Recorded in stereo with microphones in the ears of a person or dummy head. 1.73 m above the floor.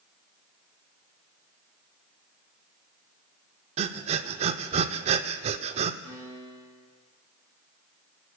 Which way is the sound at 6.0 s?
40° right (ahead or behind).